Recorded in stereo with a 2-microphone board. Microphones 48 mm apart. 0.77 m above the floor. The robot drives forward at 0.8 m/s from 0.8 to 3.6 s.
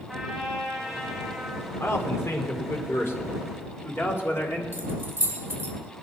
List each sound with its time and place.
0.1 s a trumpet: 10° right (ahead or behind), 3.5 m
1.8 s a man speaking: 70° left (ahead or behind), 2.5 m; by 4.6 s 50° left (ahead or behind), 2.5 m
4.7 s keys jangling: 45° right (ahead or behind), 3 m